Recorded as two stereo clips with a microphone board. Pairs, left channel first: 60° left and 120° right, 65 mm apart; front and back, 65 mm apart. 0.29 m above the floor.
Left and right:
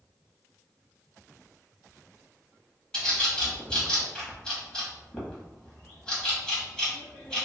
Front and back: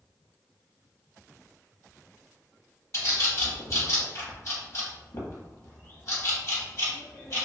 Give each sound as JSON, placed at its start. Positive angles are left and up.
{"t": 2.9, "sound": "a bird", "azimuth_deg": -15, "distance_m": 1.0}